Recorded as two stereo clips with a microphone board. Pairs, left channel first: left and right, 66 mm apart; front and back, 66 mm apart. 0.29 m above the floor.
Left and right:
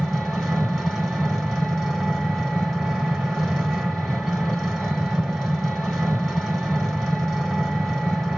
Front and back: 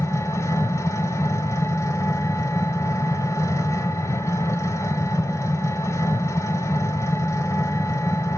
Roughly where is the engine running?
Ahead.